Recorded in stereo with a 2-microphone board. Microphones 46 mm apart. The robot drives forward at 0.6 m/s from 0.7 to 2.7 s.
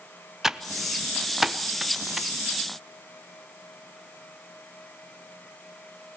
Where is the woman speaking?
No woman speaking in this recording.